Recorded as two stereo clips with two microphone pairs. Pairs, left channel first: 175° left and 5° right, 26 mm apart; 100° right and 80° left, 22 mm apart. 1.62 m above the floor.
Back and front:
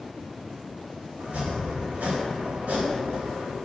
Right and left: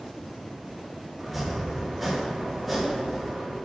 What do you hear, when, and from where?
1.2 s chopping: 10° right, 3.5 m